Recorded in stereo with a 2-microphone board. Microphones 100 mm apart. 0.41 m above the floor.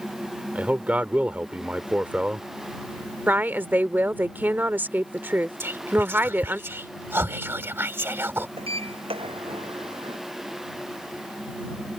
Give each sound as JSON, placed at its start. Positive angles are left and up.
{"t": 0.6, "sound": "a man speaking", "side_deg": -15}
{"t": 3.3, "sound": "a woman speaking", "side_deg": -20}
{"t": 5.6, "sound": "whispering", "side_deg": -25}
{"t": 8.6, "sound": "a sliding door", "side_deg": -70}